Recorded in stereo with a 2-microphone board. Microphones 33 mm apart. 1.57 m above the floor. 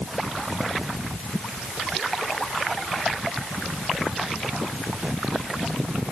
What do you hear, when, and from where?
Only background noise.